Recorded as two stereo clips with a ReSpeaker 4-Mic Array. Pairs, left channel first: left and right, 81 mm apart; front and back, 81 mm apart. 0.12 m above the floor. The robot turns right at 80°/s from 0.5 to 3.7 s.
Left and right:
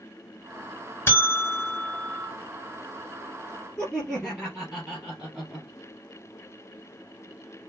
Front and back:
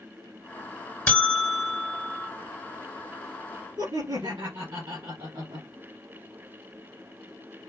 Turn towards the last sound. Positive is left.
turn(degrees=170)